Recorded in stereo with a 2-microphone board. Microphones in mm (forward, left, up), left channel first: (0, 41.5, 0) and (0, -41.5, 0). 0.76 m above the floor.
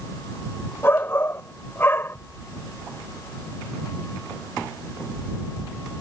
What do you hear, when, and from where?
0.8 s a shout: 30° left (ahead or behind)